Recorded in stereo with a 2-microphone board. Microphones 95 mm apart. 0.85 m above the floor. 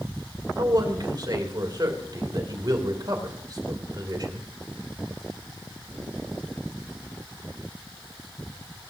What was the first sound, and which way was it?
A man speaking, 50° right (ahead or behind).